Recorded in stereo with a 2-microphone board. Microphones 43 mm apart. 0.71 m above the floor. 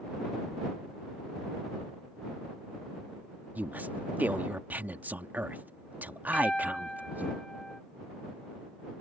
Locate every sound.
3.5 s a woman speaking: 45° right (ahead or behind)
6.3 s a piano: 15° left (ahead or behind)